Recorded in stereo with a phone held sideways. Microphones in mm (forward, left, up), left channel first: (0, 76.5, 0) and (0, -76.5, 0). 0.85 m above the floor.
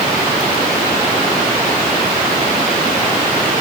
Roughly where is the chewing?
No chewing in this recording.